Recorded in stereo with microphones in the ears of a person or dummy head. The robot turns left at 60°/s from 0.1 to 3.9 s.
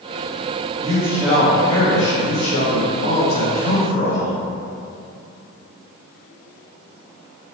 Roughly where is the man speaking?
Behind right.